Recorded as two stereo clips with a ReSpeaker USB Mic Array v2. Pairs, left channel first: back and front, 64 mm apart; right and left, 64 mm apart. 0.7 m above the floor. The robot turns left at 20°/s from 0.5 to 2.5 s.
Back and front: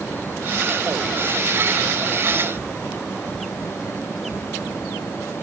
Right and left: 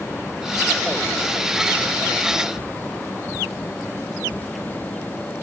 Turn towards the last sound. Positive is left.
No sound to turn to.